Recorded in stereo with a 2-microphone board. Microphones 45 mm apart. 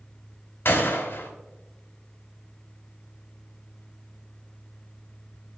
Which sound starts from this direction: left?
A gunshot, at 0.7 s.